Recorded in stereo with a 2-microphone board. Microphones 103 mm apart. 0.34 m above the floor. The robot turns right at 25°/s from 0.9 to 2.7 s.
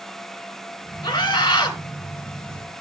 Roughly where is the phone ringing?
I don't hear a phone ringing.